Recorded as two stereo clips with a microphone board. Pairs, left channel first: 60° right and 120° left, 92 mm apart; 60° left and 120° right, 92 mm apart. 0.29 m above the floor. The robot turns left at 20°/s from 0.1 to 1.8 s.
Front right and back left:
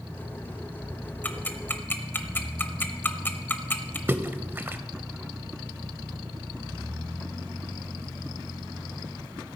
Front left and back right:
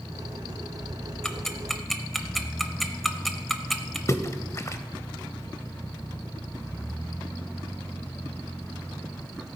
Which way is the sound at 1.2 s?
15° right.